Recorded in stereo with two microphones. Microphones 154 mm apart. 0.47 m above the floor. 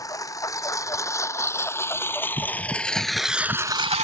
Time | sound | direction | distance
0.0 | a lawn mower | 20° left (ahead or behind) | ?